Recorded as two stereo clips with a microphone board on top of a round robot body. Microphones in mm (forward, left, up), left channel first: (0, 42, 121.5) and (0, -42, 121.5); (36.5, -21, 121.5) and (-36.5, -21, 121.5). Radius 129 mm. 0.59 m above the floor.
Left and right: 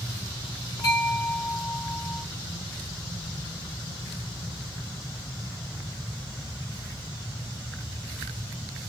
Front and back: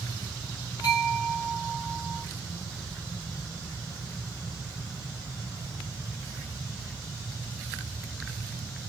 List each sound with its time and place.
0.8 s a bell: 40° left, 2 m